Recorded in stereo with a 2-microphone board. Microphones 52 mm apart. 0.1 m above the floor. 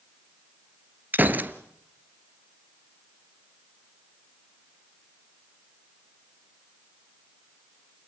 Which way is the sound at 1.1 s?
40° right (ahead or behind).